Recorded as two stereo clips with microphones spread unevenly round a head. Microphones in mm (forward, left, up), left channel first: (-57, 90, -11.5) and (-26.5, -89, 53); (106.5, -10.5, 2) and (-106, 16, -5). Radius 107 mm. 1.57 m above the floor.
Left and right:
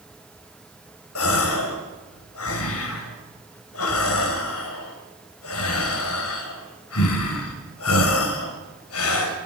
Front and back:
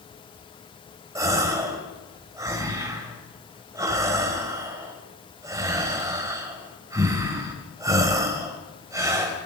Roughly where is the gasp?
Left.